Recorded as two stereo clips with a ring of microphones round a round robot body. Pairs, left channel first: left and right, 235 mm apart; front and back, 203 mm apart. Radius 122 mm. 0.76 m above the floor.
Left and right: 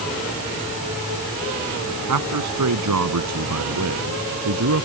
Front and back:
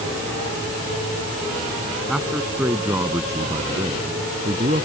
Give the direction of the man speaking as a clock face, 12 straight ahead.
3 o'clock.